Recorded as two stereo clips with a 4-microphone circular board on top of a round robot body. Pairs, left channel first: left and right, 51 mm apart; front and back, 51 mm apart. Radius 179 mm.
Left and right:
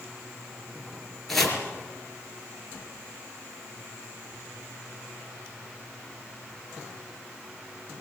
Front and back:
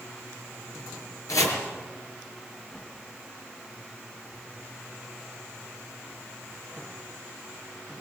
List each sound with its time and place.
1.3 s chopping: 5° left, 4.5 m